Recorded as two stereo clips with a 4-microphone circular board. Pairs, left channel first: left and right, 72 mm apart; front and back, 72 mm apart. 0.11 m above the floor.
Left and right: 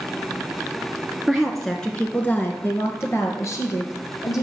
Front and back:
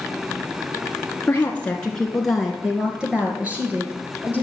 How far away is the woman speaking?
About 1.2 m.